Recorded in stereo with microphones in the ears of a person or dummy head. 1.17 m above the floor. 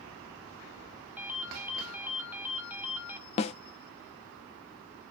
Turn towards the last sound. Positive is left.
turn(degrees=35)  # may be behind; listen again after turning